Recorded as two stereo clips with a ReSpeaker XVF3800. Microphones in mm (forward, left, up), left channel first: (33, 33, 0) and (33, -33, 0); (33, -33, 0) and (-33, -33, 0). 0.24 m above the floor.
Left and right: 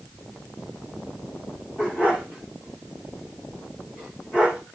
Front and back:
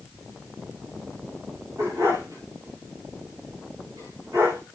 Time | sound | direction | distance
1.8 | a dog barking | 150° left | 9 m